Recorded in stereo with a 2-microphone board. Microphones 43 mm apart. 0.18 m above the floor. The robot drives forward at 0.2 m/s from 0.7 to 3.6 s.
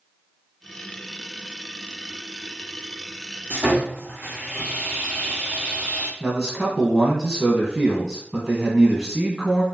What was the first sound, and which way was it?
Sawing, 55° right (ahead or behind).